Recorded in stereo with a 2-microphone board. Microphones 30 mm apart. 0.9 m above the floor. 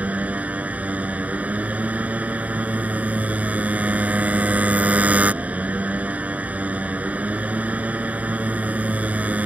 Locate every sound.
0.0 s a motorcycle: 60° right (ahead or behind)